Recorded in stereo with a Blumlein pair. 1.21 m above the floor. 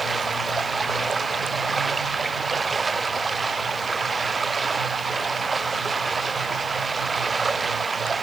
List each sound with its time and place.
0.0 s running water: 15° right